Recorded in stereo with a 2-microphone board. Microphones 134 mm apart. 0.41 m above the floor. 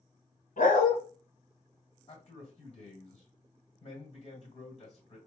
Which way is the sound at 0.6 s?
80° left.